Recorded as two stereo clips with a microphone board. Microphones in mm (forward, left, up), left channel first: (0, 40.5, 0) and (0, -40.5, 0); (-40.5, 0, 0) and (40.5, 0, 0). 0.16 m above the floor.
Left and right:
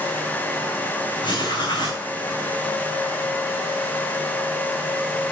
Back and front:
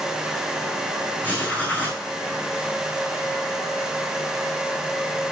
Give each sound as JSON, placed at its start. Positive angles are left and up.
{"t": 1.2, "sound": "writing", "azimuth_deg": 110, "distance_m": 5.5}